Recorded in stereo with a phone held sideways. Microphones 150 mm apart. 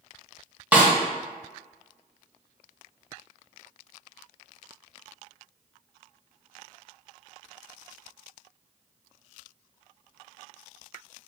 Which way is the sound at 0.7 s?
10° right (ahead or behind).